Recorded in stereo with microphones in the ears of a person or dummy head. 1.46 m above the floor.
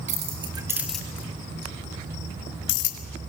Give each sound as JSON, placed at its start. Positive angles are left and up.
{"t": 0.1, "sound": "keys jangling", "side_deg": -35, "distance_m": 1.7}